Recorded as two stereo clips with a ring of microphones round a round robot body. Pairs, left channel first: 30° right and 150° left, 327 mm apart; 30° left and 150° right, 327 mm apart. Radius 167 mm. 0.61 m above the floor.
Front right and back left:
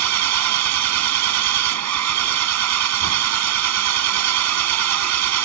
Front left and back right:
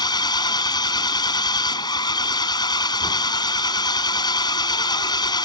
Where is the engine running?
110° left.